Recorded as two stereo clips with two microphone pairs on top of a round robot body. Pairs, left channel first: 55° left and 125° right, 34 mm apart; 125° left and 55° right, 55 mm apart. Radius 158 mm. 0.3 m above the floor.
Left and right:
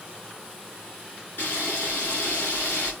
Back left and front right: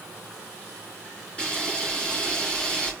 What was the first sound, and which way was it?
A camera shutter, 50° left.